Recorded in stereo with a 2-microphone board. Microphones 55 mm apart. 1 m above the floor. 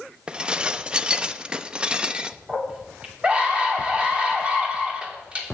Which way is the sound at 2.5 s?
20° right (ahead or behind).